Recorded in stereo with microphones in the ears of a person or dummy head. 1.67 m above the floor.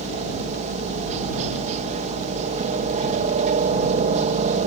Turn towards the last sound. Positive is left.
turn(degrees=-40)  # may be behind; listen again after turning